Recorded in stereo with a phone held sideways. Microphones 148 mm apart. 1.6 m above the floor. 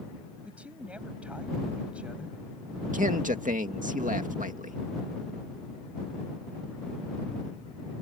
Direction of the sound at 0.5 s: 10° right (ahead or behind).